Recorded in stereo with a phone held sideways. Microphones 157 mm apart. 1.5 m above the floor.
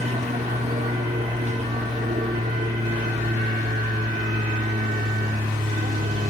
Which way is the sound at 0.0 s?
45° right (ahead or behind).